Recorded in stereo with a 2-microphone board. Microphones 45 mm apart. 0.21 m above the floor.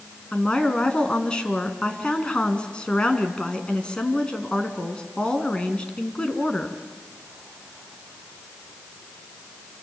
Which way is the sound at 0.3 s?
20° left (ahead or behind).